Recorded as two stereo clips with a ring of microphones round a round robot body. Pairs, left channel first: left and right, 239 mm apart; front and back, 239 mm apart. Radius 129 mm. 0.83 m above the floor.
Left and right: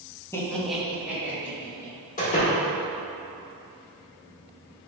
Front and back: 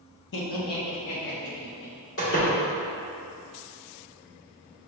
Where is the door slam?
30° left, 1.4 m.